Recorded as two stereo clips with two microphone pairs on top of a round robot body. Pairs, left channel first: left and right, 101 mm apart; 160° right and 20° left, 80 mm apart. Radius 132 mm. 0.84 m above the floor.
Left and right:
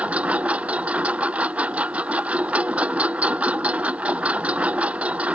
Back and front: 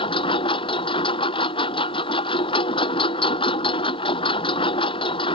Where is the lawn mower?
170° right.